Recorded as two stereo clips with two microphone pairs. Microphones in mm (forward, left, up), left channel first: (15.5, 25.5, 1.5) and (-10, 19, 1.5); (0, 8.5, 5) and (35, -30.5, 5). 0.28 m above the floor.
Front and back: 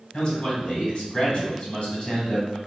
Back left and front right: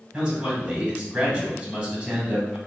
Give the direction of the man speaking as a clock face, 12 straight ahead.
12 o'clock.